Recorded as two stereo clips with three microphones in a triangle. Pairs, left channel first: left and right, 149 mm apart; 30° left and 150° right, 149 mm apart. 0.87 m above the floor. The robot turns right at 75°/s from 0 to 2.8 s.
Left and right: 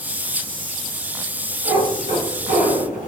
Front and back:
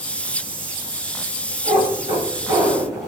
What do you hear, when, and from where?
1.6 s a cat meowing: 145° right, 1.3 m; by 3.1 s 55° right, 1.3 m